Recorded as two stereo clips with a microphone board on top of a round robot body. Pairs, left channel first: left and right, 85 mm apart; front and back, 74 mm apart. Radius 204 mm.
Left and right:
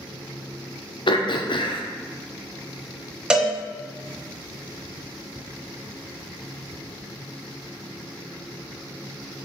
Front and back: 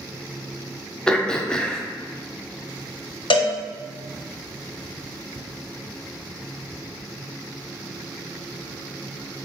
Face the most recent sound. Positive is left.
turn(degrees=-10)